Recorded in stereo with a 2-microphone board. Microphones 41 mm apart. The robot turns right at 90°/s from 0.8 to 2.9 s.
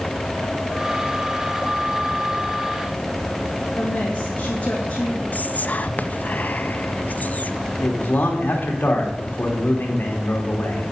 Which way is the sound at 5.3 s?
40° left (ahead or behind).